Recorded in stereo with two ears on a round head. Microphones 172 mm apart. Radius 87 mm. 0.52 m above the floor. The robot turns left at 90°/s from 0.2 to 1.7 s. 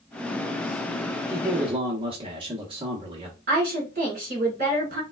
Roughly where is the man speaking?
Right.